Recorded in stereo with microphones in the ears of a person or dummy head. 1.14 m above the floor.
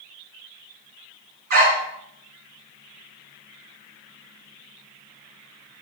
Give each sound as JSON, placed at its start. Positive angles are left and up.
{"t": 1.5, "sound": "a dog barking", "side_deg": -55, "distance_m": 4.0}